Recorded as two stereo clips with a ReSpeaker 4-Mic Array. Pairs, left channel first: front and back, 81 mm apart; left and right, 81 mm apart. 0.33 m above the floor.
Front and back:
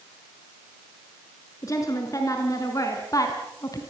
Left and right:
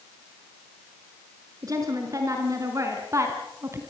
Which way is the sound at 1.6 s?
45° right.